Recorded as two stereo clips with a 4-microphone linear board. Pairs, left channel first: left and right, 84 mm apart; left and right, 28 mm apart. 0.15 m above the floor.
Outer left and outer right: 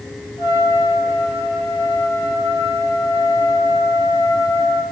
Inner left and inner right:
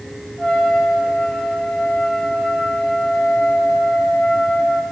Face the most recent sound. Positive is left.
turn(degrees=45)  # may be behind; listen again after turning